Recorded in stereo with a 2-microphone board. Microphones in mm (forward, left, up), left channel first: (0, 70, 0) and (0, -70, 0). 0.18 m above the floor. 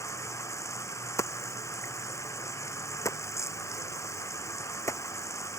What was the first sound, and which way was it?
Running water, 20° left (ahead or behind).